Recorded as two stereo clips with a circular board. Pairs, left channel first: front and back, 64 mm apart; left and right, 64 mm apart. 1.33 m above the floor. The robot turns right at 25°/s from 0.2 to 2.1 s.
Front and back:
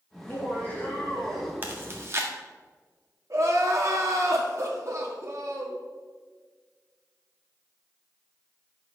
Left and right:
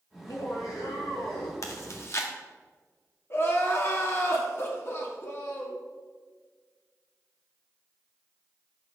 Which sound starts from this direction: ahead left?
Laughter, at 0.1 s.